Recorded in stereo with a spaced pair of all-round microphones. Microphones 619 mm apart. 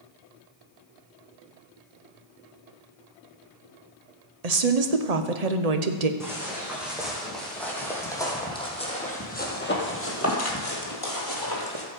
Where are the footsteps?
5° right (ahead or behind), 4 m; by 11.9 s 40° left (ahead or behind), 2 m.